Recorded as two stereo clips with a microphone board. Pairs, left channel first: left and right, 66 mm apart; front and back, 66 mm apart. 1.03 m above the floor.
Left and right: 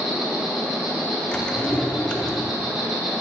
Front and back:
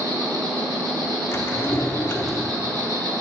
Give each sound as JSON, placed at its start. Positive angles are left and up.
{"t": 0.0, "sound": "an insect", "azimuth_deg": -175, "distance_m": 2.0}
{"t": 1.3, "sound": "a drawer", "azimuth_deg": 20, "distance_m": 0.7}